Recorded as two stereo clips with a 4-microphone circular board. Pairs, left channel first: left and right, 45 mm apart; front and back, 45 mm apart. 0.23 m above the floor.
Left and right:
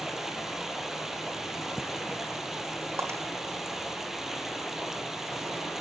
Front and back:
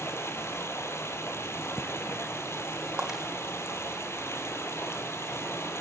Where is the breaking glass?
105° right, 5 m.